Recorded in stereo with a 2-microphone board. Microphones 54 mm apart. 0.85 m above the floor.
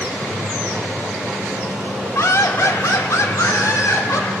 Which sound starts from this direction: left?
Laughter, at 2.1 s.